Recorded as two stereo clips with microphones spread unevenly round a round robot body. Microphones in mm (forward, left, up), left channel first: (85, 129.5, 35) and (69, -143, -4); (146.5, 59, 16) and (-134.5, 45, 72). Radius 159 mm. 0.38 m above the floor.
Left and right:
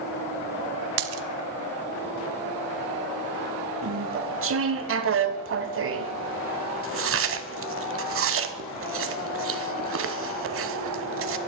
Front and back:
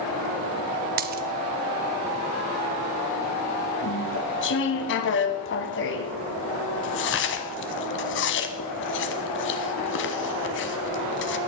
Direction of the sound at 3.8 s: 50° right.